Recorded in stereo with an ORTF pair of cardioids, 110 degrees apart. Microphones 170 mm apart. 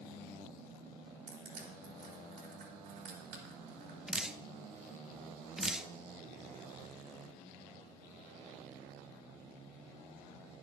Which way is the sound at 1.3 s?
70° right.